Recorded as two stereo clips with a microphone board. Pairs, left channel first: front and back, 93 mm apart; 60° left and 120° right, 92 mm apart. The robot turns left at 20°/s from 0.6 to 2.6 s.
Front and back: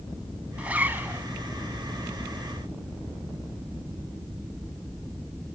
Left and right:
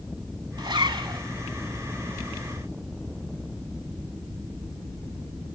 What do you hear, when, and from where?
0.6 s a zipper: 110° right, 0.8 m; by 1.2 s 120° right, 0.8 m